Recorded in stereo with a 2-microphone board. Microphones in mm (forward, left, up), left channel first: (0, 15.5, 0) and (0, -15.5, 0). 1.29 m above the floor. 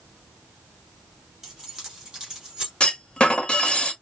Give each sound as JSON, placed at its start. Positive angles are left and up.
{"t": 1.4, "sound": "keys jangling", "side_deg": -15, "distance_m": 2.5}
{"t": 2.8, "sound": "a clunk", "side_deg": 30, "distance_m": 1.2}